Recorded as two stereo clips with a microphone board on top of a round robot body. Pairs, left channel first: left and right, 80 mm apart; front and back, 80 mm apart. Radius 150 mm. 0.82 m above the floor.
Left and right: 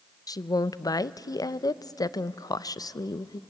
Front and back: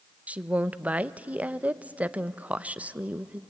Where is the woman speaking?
110° left, 0.7 m.